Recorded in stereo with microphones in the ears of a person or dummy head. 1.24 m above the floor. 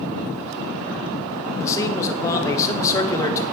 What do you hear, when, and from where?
1.6 s a man speaking: 20° left (ahead or behind), 1.0 m